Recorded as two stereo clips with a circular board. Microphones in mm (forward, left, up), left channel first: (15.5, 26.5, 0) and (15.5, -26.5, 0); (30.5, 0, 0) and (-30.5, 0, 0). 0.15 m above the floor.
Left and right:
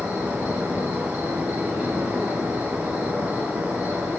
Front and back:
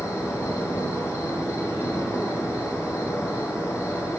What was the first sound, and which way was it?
An insect, 30° right.